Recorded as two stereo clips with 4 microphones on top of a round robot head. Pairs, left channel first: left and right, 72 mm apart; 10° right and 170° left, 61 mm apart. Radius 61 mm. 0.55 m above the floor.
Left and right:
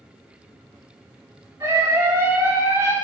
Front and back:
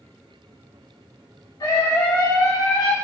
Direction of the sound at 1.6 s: 40° right.